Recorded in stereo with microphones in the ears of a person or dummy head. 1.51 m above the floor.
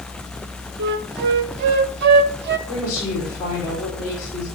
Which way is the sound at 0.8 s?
55° right (ahead or behind).